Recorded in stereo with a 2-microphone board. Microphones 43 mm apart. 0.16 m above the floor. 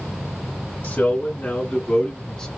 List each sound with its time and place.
0.8 s a man speaking: 45° left (ahead or behind), 1.8 m; by 2.5 s 15° left (ahead or behind), 1.4 m